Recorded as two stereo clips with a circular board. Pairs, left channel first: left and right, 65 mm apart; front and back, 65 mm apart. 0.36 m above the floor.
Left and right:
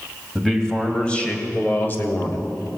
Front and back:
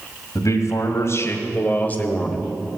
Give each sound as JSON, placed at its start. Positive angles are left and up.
{"t": 0.3, "sound": "a man speaking", "azimuth_deg": 5, "distance_m": 2.5}